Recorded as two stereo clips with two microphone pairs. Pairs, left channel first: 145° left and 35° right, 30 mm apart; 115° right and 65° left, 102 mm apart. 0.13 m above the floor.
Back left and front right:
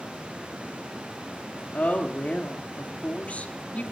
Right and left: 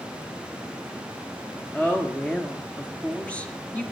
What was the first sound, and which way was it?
A woman speaking, 170° left.